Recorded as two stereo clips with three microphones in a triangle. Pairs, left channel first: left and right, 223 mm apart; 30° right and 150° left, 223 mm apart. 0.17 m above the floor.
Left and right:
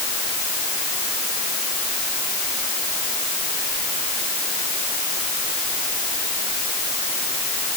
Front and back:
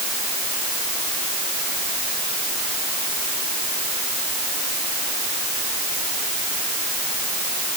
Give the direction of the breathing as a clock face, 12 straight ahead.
I don't hear breathing.